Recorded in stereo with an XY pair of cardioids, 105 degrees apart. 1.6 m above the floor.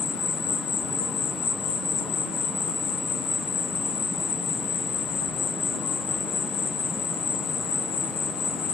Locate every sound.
0.0 s an insect: 65° left, 2.0 m